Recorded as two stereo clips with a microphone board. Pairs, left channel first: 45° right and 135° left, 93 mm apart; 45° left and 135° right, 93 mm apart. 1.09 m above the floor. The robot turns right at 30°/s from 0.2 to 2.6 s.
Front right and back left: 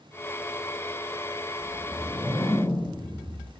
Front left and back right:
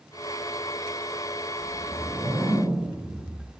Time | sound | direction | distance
1.6 | a whoosh | 125° right | 0.8 m